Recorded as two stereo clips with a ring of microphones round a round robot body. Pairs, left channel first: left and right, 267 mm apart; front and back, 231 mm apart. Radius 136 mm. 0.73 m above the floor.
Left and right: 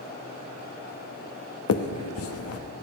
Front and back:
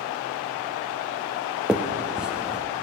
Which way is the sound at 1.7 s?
95° left.